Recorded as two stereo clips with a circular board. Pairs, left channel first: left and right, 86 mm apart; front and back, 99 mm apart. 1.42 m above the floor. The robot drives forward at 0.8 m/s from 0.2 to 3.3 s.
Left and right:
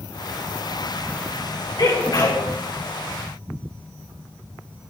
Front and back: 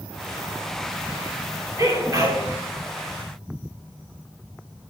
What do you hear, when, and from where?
1.8 s a sneeze: 125° left, 5 m; by 2.4 s 130° left, 5.5 m